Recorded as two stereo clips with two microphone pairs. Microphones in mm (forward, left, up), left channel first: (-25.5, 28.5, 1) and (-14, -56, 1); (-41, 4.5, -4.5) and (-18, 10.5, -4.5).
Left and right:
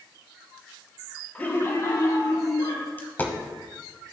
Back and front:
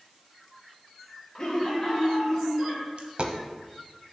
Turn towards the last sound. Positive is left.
turn(degrees=35)